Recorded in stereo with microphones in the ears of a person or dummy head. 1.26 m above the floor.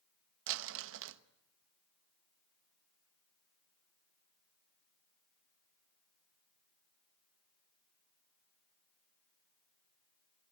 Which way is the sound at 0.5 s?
75° right (ahead or behind).